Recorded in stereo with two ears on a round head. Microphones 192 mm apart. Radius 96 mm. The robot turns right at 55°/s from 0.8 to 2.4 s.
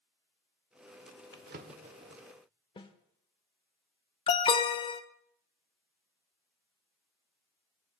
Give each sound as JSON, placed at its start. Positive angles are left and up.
{"t": 1.3, "sound": "a drawer", "side_deg": -55, "distance_m": 1.0}
{"t": 2.8, "sound": "a snare drum", "side_deg": 25, "distance_m": 1.0}
{"t": 4.3, "sound": "an alarm", "side_deg": 25, "distance_m": 0.7}